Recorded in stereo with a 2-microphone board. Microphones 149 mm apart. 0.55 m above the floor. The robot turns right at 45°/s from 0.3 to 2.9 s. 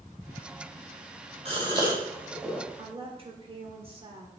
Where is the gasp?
45° right (ahead or behind), 3 m; by 2.6 s 5° left (ahead or behind), 3 m.